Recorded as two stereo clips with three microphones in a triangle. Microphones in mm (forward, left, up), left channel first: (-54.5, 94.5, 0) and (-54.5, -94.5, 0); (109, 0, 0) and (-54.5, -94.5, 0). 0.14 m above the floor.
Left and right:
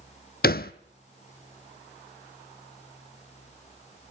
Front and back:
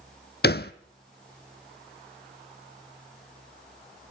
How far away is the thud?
About 0.7 m.